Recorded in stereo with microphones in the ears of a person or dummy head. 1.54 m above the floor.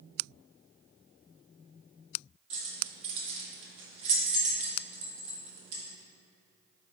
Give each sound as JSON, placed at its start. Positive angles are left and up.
{"t": 2.5, "sound": "keys jangling", "side_deg": -35, "distance_m": 1.5}